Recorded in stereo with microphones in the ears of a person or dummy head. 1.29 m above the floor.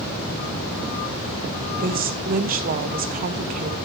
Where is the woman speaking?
45° right (ahead or behind), 1.3 m.